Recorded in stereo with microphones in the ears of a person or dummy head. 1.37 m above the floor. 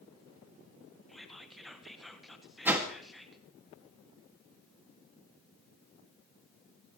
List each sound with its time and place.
1.1 s whispering: centre (ahead or behind), 1.6 m
2.6 s a whoosh: 10° right (ahead or behind), 2 m